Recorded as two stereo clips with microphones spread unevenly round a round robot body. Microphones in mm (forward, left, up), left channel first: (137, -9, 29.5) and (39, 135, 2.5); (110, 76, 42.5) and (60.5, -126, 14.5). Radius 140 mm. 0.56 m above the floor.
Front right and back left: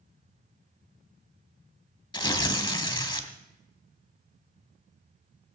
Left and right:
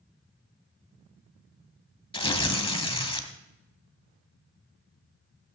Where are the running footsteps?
I don't hear running footsteps.